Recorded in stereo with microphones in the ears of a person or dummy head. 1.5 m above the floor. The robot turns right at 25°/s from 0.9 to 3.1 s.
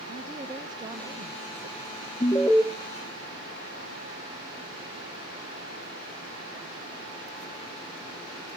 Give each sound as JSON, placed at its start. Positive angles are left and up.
{"t": 0.1, "sound": "a woman speaking", "azimuth_deg": -155, "distance_m": 0.7}
{"t": 2.2, "sound": "an alarm", "side_deg": 10, "distance_m": 0.7}